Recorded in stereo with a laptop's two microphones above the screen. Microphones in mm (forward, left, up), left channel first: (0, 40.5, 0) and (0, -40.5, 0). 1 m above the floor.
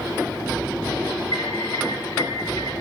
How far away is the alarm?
About 5 m.